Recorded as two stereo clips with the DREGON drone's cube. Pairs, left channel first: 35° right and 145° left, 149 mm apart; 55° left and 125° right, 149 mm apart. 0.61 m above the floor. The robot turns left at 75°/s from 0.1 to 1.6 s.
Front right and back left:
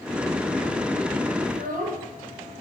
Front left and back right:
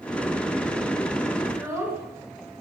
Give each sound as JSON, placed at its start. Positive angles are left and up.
{"t": 1.4, "sound": "a child speaking", "azimuth_deg": 175, "distance_m": 4.5}